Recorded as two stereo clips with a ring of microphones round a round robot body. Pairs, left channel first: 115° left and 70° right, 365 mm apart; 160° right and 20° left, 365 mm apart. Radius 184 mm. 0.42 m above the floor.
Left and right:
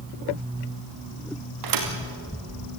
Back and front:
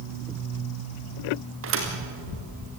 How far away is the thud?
About 3.5 m.